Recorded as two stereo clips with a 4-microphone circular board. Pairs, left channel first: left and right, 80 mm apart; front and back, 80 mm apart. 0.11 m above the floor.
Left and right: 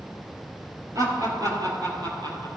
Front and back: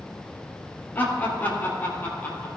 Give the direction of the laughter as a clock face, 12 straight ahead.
2 o'clock.